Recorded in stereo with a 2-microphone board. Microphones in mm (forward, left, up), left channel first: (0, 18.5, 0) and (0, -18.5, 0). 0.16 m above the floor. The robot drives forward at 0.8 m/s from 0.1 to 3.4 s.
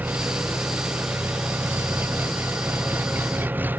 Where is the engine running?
55° right (ahead or behind); by 3.8 s 60° right (ahead or behind).